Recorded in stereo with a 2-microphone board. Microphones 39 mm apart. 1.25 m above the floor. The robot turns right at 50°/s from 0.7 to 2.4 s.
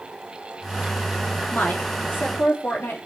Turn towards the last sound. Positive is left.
turn(degrees=100)